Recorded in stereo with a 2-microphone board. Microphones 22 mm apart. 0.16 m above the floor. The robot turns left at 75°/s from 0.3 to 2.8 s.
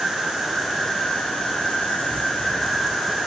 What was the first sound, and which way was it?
An insect, 165° right.